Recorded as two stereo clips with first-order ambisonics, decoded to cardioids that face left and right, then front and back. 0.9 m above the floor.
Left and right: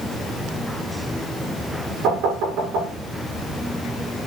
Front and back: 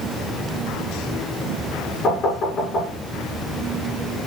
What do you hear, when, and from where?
2.0 s knocking: 60° right, 8 m